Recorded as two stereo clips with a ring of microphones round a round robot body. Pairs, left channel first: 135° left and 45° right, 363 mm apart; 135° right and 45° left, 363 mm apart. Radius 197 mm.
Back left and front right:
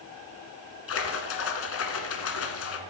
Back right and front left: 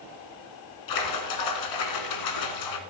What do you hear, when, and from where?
0.9 s a splash: 170° right, 1.2 m